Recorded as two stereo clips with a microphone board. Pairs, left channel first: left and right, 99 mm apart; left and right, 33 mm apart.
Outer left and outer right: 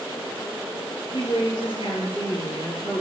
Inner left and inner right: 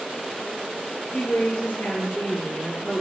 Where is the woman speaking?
55° left (ahead or behind), 5 m.